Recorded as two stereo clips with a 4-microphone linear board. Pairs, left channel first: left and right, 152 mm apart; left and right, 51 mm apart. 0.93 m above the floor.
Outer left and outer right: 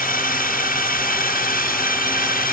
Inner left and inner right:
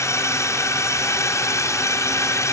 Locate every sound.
0.0 s a drone: 65° left (ahead or behind)